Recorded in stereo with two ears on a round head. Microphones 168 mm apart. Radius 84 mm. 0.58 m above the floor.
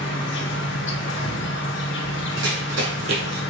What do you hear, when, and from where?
0.0 s an insect: 70° left (ahead or behind), 0.8 m
2.4 s running footsteps: 75° right (ahead or behind), 2 m; by 3.4 s 60° right (ahead or behind), 1.0 m